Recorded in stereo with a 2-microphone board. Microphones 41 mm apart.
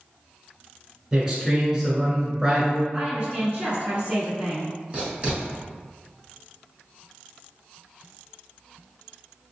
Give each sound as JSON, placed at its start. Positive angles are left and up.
{"t": 1.1, "sound": "a man speaking", "side_deg": -15, "distance_m": 1.3}
{"t": 2.9, "sound": "a woman speaking", "side_deg": -25, "distance_m": 1.2}
{"t": 4.9, "sound": "writing", "side_deg": -25, "distance_m": 1.5}